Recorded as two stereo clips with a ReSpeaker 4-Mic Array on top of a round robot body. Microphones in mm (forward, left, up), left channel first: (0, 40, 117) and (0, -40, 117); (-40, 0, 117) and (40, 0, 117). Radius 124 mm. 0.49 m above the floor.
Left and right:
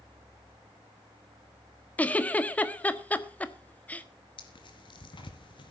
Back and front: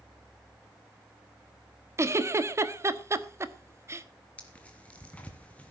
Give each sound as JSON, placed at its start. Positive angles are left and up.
{"t": 2.0, "sound": "a giggle", "azimuth_deg": 30, "distance_m": 1.5}
{"t": 4.4, "sound": "tearing paper", "azimuth_deg": 105, "distance_m": 2.5}